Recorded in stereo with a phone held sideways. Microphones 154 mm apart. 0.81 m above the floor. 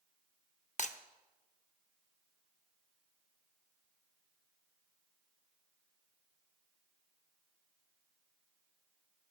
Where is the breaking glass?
55° left (ahead or behind), 0.6 m.